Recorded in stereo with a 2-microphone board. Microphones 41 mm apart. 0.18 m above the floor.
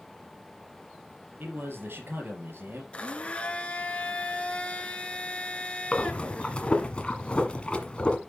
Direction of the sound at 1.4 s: 65° right (ahead or behind).